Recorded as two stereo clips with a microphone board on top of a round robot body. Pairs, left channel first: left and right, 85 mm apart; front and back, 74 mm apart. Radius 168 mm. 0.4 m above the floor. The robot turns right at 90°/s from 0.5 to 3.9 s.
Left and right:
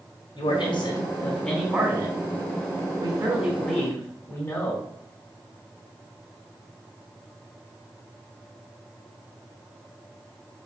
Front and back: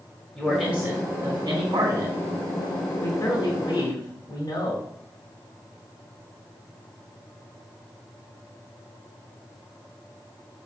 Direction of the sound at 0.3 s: 80° left.